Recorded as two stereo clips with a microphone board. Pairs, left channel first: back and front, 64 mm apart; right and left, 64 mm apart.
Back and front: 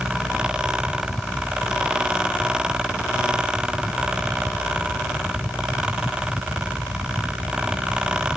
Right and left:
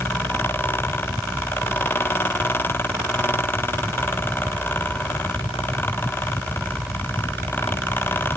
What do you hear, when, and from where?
Only background noise.